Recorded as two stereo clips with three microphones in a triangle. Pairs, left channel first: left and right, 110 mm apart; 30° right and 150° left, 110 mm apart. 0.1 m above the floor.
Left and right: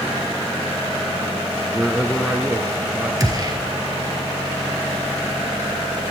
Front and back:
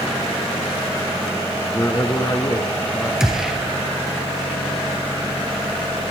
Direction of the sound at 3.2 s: 125° right.